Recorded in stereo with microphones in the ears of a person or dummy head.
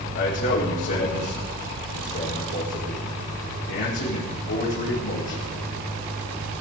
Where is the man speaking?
60° left (ahead or behind), 6 m.